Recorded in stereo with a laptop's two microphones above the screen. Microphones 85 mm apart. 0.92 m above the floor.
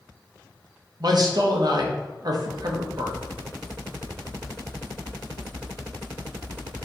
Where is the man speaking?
55° right (ahead or behind), 0.8 m.